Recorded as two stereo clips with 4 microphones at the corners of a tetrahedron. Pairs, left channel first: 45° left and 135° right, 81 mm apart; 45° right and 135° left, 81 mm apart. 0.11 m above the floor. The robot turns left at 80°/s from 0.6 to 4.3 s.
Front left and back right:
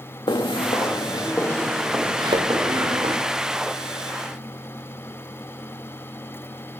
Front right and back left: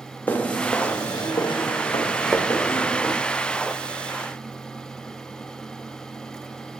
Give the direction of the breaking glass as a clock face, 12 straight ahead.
I don't hear breaking glass.